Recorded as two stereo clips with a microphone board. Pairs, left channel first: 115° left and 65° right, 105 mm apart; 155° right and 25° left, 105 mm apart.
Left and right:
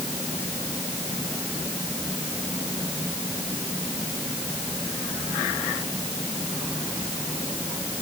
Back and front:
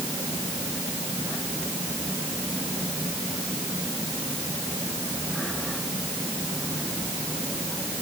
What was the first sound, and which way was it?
Only background noise.